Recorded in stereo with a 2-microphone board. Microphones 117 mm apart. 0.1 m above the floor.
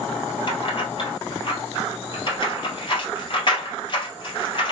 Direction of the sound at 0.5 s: 45° left (ahead or behind).